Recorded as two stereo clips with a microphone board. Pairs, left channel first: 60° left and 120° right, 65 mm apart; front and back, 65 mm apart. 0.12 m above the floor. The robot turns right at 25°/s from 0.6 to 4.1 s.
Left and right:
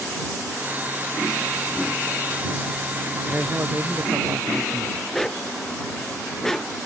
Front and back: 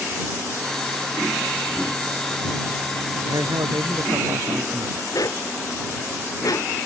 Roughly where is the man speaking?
Behind.